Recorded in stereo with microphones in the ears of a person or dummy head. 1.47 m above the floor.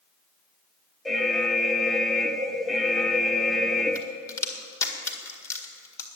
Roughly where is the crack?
Centre.